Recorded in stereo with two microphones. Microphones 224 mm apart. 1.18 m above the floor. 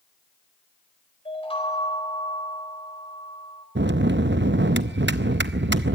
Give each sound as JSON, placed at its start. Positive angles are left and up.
{"t": 1.2, "sound": "a chime", "side_deg": 25, "distance_m": 4.0}
{"t": 3.8, "sound": "a bell", "side_deg": -55, "distance_m": 0.6}